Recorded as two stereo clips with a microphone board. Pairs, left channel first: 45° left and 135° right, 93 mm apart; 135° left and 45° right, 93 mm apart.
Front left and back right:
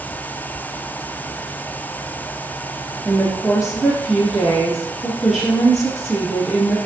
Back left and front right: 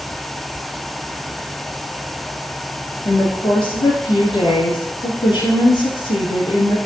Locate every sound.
3.0 s a woman speaking: 135° left, 3 m